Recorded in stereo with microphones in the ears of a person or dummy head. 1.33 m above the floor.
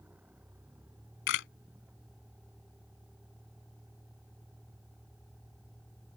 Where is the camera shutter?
65° left (ahead or behind).